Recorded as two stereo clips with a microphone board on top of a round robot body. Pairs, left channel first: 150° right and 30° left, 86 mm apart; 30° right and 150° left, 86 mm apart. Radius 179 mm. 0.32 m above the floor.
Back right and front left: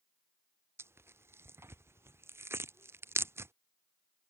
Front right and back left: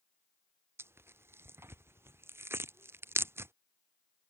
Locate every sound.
0.8 s tearing paper: 90° left